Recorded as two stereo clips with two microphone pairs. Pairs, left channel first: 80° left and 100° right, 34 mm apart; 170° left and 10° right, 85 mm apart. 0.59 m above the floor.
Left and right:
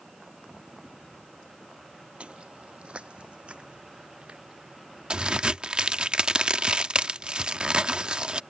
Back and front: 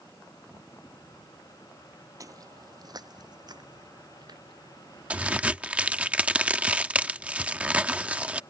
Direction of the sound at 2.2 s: 50° right.